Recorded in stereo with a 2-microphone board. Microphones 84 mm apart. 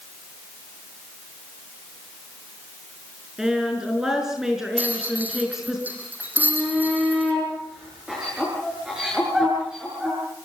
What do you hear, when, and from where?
3.4 s a woman speaking: 5° right (ahead or behind), 5.5 m
4.8 s a rattle: 20° right (ahead or behind), 4.5 m
6.4 s a shout: 10° right (ahead or behind), 7 m